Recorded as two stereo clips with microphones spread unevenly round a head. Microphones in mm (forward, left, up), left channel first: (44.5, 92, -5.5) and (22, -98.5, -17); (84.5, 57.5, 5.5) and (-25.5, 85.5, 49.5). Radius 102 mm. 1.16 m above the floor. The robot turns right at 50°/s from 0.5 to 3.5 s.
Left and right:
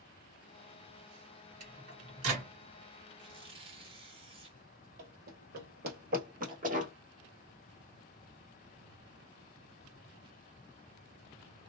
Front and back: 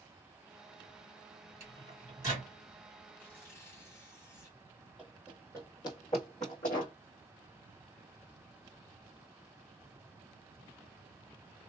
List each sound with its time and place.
1.6 s a microwave: 150° right, 1.8 m; by 2.5 s 105° right, 1.8 m
3.2 s tearing paper: 130° right, 0.8 m; by 4.6 s 115° right, 0.8 m
5.0 s running footsteps: 125° right, 1.7 m; by 6.9 s 55° right, 1.7 m